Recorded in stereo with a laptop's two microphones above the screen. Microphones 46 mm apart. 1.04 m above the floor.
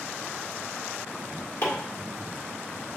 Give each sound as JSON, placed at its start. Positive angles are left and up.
{"t": 1.6, "sound": "chopping", "side_deg": 85, "distance_m": 1.7}